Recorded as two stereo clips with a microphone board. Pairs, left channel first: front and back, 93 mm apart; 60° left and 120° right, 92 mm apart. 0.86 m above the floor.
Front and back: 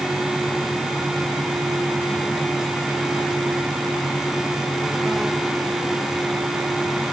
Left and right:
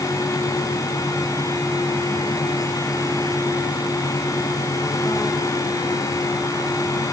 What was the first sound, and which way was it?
Only background noise.